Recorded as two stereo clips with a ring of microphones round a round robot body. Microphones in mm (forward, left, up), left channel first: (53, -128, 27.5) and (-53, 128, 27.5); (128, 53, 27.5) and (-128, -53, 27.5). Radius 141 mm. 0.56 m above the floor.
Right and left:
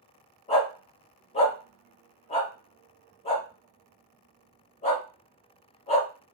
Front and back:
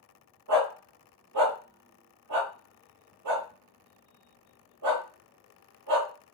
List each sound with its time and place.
0.5 s a dog barking: 135° right, 1.0 m